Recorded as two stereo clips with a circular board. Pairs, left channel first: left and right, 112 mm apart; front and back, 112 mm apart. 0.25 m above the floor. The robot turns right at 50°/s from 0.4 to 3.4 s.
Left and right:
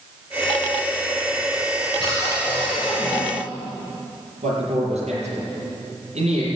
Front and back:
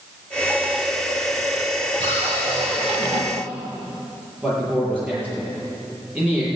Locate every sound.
2.0 s a cupboard door: 140° left, 4 m; by 3.2 s 160° right, 4 m
4.4 s a man speaking: 105° right, 6.5 m